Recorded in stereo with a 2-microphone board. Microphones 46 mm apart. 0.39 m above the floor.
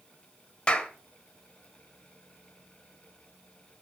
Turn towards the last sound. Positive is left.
turn(degrees=20)  # may be behind; listen again after turning